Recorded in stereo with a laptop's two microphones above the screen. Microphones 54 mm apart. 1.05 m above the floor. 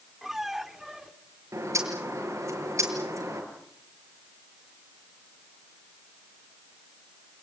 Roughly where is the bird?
Right.